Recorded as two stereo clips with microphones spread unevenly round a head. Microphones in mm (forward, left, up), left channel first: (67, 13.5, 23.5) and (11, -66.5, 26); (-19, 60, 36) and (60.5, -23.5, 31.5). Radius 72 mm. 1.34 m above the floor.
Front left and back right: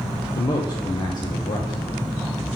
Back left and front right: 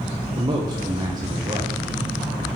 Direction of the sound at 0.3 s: 5° left.